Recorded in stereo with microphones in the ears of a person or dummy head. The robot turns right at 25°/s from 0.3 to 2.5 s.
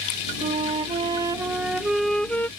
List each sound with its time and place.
0.4 s a flute: 40° right; by 2.5 s 10° left